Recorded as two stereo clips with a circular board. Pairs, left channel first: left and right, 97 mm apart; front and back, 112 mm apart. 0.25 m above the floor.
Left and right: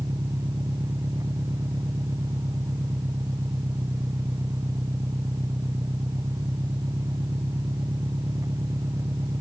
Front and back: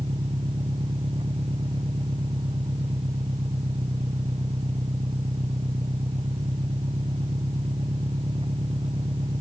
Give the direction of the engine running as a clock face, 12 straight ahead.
5 o'clock.